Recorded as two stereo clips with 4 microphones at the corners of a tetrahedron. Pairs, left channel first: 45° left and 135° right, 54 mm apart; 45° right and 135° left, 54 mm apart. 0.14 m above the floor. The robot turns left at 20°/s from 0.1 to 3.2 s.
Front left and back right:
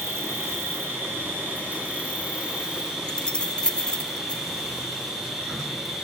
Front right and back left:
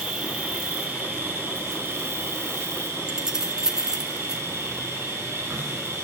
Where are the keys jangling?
80° left, 0.8 m; by 4.4 s 75° left, 0.8 m.